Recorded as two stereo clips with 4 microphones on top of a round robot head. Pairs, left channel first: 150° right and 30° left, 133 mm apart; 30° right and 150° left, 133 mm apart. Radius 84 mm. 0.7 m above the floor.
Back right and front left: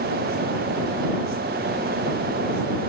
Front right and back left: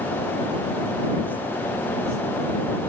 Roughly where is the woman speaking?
No woman speaking in this recording.